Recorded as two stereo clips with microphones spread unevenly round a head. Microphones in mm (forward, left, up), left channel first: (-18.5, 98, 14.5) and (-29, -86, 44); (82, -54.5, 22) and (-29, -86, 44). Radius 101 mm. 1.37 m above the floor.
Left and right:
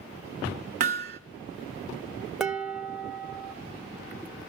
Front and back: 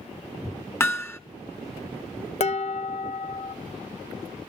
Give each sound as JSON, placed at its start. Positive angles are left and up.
{"t": 0.8, "sound": "hammering", "azimuth_deg": -55, "distance_m": 1.2}
{"t": 2.4, "sound": "dishes clattering", "azimuth_deg": -10, "distance_m": 0.8}